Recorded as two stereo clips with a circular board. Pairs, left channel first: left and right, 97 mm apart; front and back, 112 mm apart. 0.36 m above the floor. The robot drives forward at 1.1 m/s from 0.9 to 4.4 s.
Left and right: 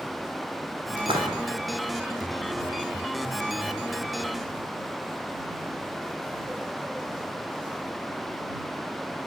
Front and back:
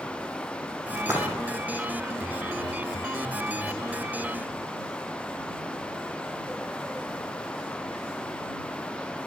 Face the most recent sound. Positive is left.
turn(degrees=-140)